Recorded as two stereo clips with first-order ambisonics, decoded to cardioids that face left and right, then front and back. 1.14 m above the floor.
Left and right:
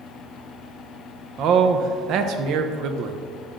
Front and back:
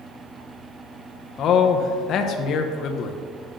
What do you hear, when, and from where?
1.4 s a man speaking: 50° right, 0.6 m